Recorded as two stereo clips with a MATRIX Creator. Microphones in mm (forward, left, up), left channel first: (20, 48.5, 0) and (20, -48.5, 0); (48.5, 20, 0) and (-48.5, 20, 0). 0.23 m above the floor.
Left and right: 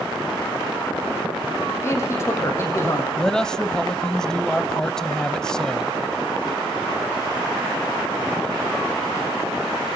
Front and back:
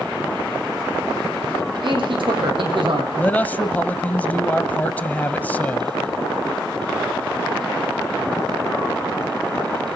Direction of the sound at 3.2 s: 20° left.